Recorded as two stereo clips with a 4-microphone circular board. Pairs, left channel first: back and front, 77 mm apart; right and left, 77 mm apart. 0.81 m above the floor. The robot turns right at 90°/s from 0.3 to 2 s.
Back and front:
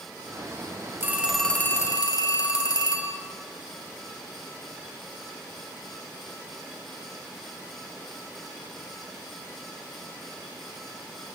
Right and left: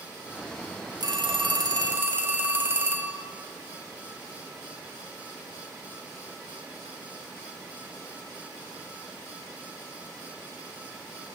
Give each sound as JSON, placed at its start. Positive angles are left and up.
{"t": 1.0, "sound": "a phone ringing", "azimuth_deg": 60, "distance_m": 0.8}